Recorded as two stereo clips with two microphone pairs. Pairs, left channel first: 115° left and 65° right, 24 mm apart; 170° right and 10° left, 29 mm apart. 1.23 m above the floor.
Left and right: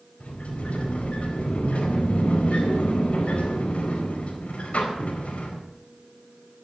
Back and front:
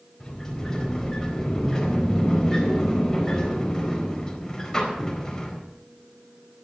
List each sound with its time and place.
0.2 s a sliding door: 125° left, 4 m